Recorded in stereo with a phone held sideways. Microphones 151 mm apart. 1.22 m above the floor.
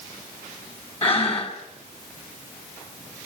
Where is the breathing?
40° left (ahead or behind), 2.5 m.